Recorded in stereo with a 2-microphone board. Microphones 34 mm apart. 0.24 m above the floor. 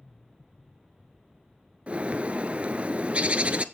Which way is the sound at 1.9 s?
40° right (ahead or behind).